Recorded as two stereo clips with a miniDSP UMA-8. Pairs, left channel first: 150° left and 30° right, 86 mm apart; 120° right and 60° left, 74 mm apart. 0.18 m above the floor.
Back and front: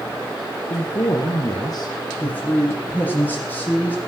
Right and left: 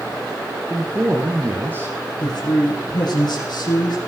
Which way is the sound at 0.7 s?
120° left.